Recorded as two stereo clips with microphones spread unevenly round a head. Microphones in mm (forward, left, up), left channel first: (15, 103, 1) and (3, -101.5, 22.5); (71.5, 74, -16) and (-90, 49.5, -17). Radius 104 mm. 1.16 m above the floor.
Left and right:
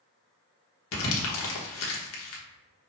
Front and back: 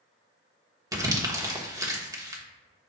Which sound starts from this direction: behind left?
Crumpling, at 0.9 s.